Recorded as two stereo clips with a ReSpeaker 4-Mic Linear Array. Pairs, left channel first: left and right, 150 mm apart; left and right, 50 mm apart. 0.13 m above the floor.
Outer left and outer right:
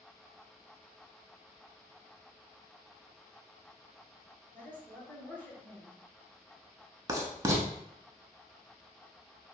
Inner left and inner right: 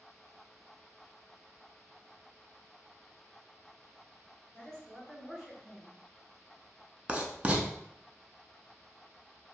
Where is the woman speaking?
10° left (ahead or behind), 1.8 m.